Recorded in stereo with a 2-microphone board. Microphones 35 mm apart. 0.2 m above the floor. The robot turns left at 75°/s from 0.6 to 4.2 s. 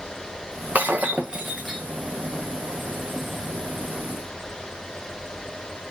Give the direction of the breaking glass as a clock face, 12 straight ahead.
4 o'clock.